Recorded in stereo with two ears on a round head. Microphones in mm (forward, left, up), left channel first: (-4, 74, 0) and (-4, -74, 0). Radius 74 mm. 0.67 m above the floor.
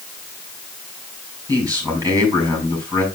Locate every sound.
1.5 s a man speaking: 20° right (ahead or behind), 5 m